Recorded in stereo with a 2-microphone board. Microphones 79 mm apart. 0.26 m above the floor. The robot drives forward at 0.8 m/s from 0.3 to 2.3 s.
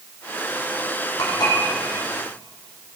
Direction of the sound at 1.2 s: 65° left (ahead or behind).